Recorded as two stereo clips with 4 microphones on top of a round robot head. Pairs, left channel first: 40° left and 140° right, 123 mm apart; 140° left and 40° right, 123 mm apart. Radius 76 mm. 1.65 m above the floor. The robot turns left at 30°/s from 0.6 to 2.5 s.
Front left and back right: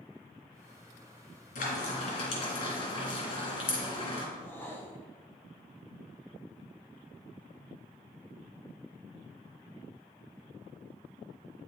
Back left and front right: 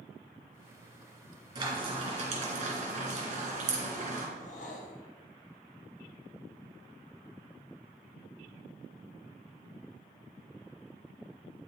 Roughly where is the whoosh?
Behind left.